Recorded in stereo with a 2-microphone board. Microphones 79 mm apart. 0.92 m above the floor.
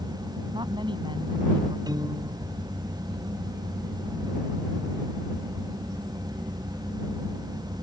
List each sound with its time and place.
0.5 s a woman speaking: 80° right
1.9 s a piano: 60° right (ahead or behind)